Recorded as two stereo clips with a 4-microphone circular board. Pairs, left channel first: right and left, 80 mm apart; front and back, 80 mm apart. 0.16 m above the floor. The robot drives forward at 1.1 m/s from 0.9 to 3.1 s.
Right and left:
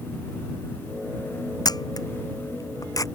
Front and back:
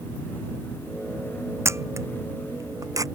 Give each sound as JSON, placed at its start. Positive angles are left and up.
{"t": 1.6, "sound": "a camera shutter", "azimuth_deg": -125}